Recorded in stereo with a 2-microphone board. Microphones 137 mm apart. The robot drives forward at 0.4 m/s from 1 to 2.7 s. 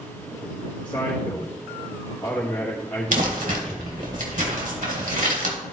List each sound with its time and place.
0.8 s a man speaking: 30° left (ahead or behind), 1.5 m; by 4.1 s 20° left (ahead or behind), 2 m
3.1 s crumpling: 75° right (ahead or behind), 1.8 m